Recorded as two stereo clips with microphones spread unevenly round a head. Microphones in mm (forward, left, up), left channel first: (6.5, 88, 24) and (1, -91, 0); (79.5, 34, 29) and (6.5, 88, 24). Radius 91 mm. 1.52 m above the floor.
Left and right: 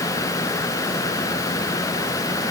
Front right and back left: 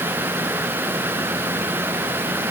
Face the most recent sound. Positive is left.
No sound to turn to.